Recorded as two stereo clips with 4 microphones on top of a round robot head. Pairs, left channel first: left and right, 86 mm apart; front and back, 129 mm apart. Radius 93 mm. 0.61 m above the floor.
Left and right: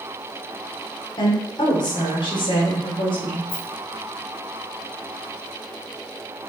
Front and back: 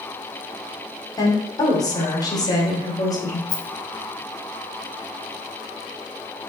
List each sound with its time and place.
1.2 s a woman speaking: 55° left, 2.5 m
3.5 s a rattle: 55° left, 1.3 m